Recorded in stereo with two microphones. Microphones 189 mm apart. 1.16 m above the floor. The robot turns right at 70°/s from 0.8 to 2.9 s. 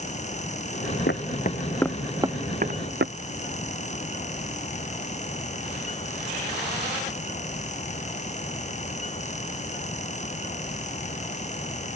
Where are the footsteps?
65° left (ahead or behind); by 3.1 s 65° right (ahead or behind).